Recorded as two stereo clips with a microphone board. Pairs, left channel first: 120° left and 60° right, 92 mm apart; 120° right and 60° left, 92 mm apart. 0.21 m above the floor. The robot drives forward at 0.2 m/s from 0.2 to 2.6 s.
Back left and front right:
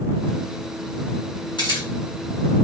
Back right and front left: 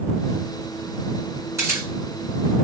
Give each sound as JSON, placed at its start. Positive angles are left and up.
{"t": 1.6, "sound": "a camera shutter", "azimuth_deg": 115, "distance_m": 2.5}